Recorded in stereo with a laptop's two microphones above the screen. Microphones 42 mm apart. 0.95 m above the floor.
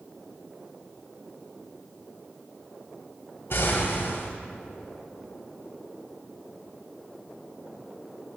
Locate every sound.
3.5 s an explosion: 60° left (ahead or behind), 1.4 m